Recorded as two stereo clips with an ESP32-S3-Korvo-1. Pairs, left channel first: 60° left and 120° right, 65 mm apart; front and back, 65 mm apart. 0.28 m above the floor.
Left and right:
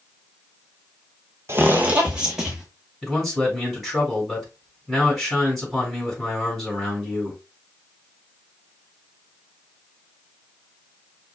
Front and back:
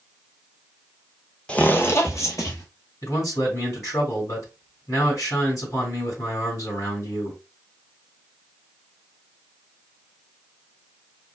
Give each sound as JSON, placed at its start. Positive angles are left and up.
{"t": 1.5, "sound": "footsteps", "azimuth_deg": -75, "distance_m": 0.6}
{"t": 3.0, "sound": "a man speaking", "azimuth_deg": -30, "distance_m": 2.5}